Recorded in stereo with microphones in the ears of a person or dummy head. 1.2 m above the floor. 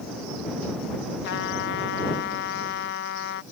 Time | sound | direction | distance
1.2 | a trumpet | 65° left (ahead or behind) | ?